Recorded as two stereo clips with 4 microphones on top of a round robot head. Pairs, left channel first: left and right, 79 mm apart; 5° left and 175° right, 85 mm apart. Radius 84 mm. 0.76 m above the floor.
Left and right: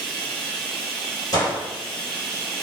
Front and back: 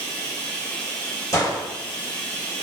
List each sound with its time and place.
0.0 s running water: 10° left, 0.9 m
1.3 s a gunshot: 55° left, 1.7 m